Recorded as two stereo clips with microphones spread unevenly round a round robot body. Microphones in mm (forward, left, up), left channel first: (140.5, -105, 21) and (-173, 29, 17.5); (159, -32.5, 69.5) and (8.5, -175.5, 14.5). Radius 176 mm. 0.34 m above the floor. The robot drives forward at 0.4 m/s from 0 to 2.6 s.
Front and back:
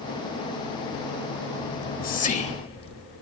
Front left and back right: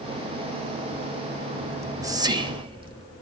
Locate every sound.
1.7 s whispering: 75° right, 1.4 m; by 3.0 s 95° right, 1.4 m